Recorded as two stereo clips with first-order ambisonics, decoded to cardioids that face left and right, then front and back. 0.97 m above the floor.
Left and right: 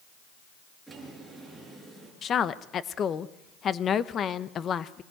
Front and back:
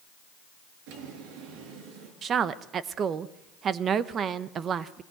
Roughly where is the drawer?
Behind.